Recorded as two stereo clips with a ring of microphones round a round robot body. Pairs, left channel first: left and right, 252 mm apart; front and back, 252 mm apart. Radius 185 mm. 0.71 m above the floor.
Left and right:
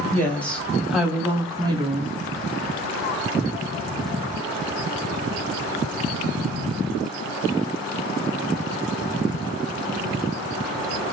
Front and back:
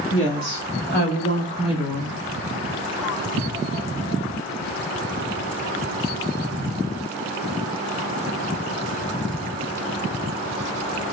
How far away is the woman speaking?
About 1.7 m.